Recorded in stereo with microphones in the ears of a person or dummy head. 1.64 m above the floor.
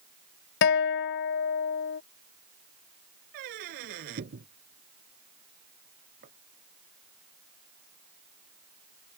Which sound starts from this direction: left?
A guitar, at 0.6 s.